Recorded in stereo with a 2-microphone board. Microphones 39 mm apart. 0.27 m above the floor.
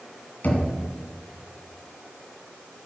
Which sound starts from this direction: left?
Knocking, at 0.4 s.